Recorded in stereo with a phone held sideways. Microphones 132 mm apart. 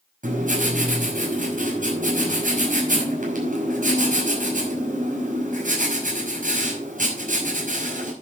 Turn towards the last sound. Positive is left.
turn(degrees=-85)